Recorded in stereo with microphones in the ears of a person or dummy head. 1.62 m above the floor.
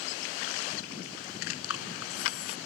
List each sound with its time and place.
1.6 s breathing: 90° left